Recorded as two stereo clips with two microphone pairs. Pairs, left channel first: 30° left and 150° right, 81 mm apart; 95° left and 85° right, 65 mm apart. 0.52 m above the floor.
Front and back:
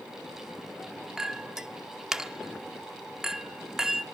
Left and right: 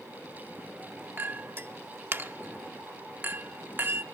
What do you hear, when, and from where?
1.2 s a clink: 70° right, 0.6 m